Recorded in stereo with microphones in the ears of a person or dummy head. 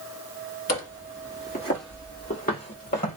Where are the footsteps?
45° left (ahead or behind), 1.7 m; by 3.2 s 35° left (ahead or behind), 1.6 m.